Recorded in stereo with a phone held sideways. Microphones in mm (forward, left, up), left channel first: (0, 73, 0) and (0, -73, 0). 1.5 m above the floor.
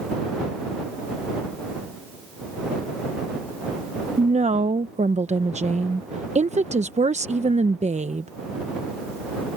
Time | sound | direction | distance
4.2 | a woman speaking | 50° right (ahead or behind) | ?